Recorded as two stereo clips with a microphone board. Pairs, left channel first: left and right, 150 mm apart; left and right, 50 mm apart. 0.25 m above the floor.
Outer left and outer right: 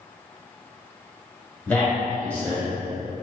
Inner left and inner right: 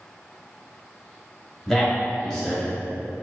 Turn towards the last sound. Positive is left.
turn(degrees=10)  # may be behind; listen again after turning